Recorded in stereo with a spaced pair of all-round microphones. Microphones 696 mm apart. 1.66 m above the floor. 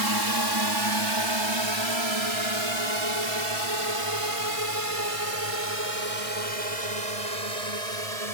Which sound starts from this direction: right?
A drone, at 0.0 s.